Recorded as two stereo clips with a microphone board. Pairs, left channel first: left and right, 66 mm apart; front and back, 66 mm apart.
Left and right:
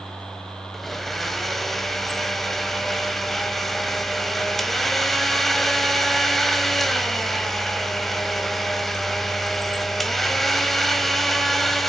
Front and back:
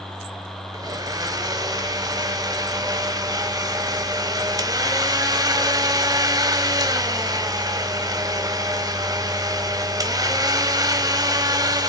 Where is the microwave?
No microwave in this recording.